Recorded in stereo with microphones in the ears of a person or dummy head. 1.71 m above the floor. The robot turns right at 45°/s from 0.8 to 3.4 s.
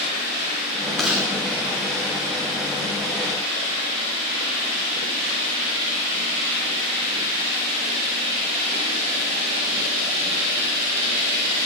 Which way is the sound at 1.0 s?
Centre (ahead or behind).